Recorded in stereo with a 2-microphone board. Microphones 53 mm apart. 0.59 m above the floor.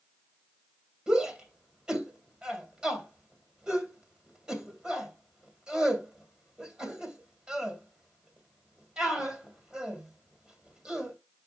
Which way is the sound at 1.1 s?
20° right (ahead or behind).